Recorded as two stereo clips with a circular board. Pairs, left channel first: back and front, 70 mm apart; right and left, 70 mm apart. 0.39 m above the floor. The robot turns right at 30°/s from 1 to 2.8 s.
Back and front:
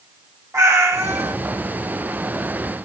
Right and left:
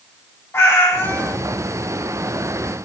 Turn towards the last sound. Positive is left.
turn(degrees=15)